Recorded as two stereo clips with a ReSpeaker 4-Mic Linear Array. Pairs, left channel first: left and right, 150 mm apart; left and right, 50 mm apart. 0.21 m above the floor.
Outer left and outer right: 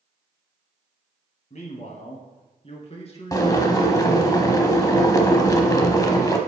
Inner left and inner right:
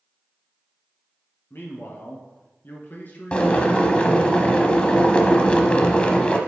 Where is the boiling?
25° left (ahead or behind), 0.8 m.